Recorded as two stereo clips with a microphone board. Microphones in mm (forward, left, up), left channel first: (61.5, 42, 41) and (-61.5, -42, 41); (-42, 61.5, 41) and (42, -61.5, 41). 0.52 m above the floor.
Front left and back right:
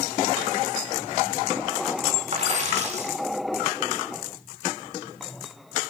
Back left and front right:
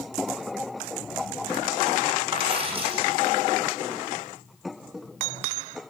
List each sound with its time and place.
2.3 s a dropped coin: 105° right, 8.5 m